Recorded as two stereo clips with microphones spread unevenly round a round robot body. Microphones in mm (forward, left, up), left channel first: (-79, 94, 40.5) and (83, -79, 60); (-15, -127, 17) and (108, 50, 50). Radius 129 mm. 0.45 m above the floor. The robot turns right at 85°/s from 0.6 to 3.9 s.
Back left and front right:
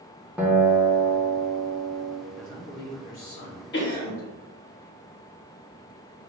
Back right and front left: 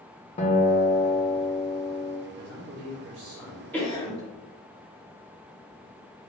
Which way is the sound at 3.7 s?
160° left.